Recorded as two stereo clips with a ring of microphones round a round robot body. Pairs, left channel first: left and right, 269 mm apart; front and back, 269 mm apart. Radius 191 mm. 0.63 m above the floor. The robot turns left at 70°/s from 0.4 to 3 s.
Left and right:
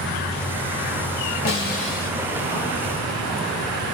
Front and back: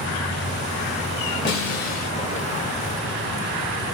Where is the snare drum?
50° left, 2.5 m; by 2.1 s 5° left, 2.5 m.